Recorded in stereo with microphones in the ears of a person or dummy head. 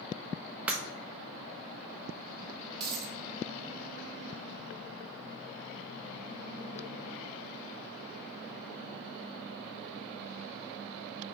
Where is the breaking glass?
15° right (ahead or behind), 1.0 m.